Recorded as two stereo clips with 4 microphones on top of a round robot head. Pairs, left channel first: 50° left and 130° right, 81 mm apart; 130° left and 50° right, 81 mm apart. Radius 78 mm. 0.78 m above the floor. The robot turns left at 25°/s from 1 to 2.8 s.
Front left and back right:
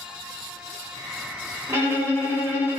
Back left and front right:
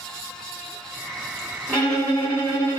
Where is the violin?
160° right, 1.2 m; by 2.8 s 170° left, 1.2 m.